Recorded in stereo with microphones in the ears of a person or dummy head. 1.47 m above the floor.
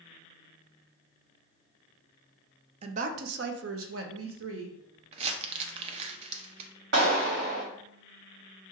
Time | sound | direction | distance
2.8 | a woman speaking | 40° right (ahead or behind) | 0.6 m
5.1 | crumpling | 40° right (ahead or behind) | 0.6 m
6.9 | a clap | 60° right (ahead or behind) | 2 m